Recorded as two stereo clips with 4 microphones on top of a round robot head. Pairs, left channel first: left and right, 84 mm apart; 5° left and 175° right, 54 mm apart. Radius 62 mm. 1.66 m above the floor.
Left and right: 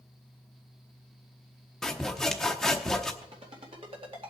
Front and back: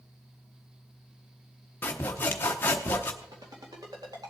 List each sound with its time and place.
1.8 s sawing: 10° left, 0.8 m
3.2 s a ringtone: 130° right, 2 m